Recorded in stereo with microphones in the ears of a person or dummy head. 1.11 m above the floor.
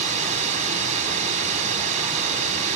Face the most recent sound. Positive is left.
turn(degrees=-40)  # may be behind; listen again after turning